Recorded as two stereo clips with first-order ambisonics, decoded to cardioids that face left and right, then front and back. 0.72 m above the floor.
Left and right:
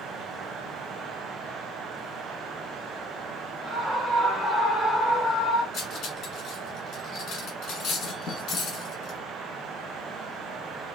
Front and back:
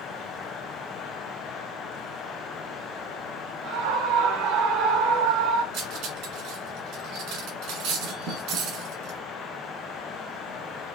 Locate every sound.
3.6 s a scream: 165° right, 3 m; by 5.6 s 155° left, 3 m
5.7 s cutlery clinking: 145° left, 2 m